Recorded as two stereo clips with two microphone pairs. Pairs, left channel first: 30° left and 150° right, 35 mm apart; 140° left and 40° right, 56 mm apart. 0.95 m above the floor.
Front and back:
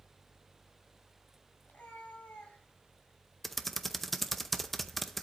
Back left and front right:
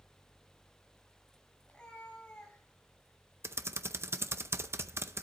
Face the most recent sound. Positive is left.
turn(degrees=-60)